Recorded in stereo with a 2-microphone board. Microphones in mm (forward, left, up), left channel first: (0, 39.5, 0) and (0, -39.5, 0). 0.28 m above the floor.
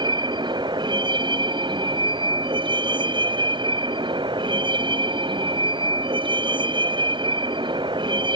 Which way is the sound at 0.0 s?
70° right (ahead or behind).